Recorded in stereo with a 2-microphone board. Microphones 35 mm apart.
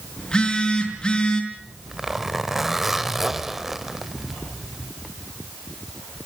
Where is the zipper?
10° right (ahead or behind), 1.1 m.